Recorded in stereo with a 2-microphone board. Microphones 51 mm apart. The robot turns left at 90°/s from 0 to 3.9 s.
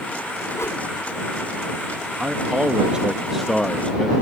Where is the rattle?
No rattle in this recording.